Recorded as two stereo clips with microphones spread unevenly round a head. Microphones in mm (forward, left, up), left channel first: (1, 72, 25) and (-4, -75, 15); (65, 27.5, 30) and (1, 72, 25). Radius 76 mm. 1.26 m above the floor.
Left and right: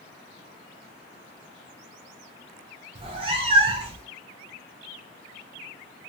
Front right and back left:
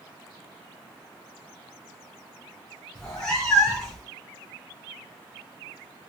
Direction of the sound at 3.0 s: 100° right.